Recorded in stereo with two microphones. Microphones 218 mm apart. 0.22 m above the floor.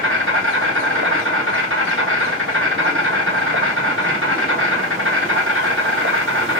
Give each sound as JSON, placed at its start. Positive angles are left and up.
{"t": 0.0, "sound": "an insect", "side_deg": -70, "distance_m": 1.3}